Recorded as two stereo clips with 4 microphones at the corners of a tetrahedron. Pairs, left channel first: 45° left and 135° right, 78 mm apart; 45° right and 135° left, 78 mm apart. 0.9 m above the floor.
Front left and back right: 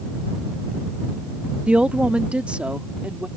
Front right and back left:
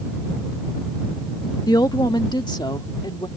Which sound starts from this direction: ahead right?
A woman speaking, at 1.7 s.